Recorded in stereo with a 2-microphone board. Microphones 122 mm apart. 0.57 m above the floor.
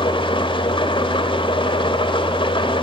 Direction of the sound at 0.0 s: 45° left (ahead or behind).